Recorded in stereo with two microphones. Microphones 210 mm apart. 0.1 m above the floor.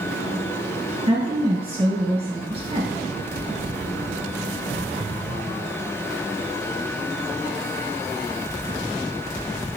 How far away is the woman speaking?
About 2 m.